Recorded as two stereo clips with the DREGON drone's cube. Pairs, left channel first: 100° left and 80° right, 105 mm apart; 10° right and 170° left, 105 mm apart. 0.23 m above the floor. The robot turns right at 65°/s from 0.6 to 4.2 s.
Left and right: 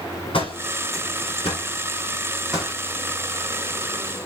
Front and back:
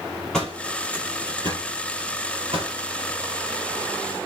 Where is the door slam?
75° left, 5 m; by 2.8 s 145° right, 5 m.